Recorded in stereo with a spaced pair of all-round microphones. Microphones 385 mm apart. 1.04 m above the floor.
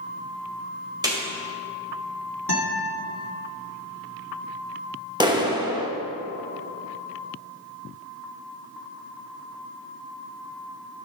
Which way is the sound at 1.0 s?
10° right (ahead or behind).